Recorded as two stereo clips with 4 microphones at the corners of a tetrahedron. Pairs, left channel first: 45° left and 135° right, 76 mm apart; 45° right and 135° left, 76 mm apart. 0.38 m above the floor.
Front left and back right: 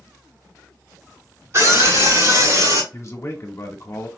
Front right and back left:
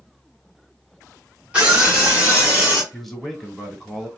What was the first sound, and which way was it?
A scream, 160° right.